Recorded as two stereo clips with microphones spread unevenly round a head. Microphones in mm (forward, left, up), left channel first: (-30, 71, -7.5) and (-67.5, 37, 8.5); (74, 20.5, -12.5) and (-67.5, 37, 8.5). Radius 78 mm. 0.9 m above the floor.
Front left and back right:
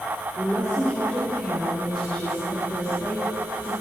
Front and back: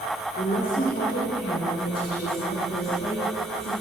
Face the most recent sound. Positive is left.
turn(degrees=-35)